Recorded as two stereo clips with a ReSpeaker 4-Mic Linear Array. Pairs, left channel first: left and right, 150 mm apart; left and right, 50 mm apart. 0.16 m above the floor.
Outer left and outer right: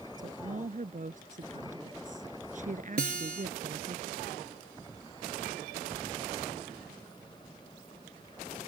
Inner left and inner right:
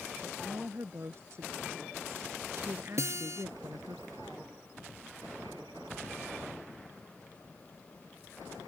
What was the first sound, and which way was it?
A woman speaking, 55° right (ahead or behind).